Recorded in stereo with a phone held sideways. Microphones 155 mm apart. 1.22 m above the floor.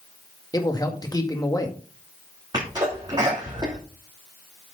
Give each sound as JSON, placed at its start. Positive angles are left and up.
{"t": 0.5, "sound": "a man speaking", "side_deg": 25, "distance_m": 1.9}
{"t": 2.5, "sound": "a sneeze", "side_deg": -25, "distance_m": 3.0}